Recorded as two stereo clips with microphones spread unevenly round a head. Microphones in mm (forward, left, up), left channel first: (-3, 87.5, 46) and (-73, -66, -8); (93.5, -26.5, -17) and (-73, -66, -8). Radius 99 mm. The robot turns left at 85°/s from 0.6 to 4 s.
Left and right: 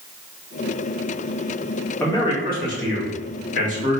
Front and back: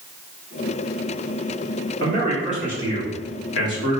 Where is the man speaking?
150° left, 1.2 m; by 4.0 s 20° right, 1.2 m.